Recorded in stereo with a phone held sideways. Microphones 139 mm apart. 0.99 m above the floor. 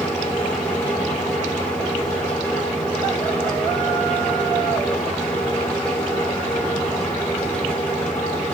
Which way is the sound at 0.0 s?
10° left (ahead or behind).